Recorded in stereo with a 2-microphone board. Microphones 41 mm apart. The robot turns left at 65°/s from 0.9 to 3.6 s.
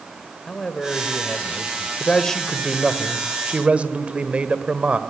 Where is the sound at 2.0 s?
40° left, 1.6 m; by 5.0 s 65° right, 1.6 m.